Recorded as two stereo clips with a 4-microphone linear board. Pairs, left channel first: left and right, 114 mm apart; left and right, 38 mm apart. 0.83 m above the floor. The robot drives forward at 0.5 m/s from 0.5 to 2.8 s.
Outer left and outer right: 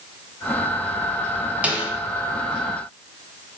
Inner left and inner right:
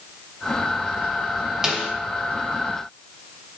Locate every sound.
1.6 s a snare drum: 10° right (ahead or behind), 0.8 m